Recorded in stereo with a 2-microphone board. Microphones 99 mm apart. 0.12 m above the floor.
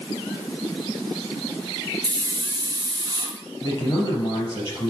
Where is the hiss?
45° right (ahead or behind), 1.4 m.